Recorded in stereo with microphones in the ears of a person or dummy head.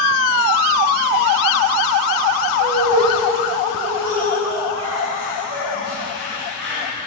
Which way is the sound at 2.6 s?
65° right (ahead or behind).